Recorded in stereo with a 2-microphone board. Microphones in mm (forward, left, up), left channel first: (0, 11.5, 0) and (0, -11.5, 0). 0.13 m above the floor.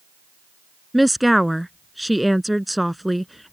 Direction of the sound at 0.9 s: Centre (ahead or behind).